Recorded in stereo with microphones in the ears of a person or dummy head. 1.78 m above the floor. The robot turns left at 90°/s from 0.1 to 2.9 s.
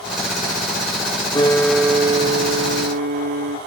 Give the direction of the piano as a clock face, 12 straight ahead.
11 o'clock.